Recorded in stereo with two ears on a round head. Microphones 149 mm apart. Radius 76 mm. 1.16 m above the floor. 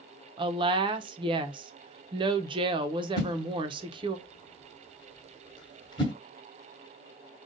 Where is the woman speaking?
30° right (ahead or behind), 0.8 m.